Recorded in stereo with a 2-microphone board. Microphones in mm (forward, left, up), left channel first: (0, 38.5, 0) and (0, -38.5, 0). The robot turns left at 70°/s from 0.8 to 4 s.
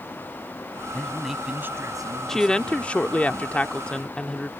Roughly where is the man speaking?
Ahead.